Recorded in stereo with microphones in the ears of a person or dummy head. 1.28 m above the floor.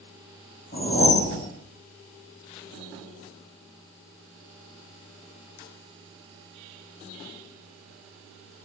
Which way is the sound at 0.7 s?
35° left (ahead or behind).